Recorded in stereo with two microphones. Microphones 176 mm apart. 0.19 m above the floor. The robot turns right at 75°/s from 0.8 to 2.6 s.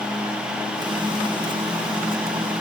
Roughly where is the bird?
No bird in this recording.